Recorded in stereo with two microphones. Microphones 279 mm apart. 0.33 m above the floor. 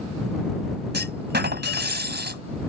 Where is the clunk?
40° right (ahead or behind).